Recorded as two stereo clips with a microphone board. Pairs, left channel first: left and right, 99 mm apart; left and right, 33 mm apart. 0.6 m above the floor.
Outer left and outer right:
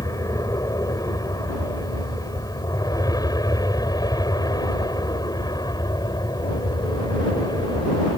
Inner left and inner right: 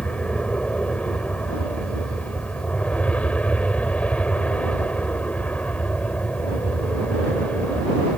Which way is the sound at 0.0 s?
35° left (ahead or behind).